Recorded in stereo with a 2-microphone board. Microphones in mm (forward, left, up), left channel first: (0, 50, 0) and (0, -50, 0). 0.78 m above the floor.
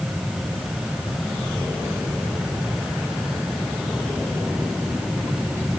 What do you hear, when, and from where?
Only background noise.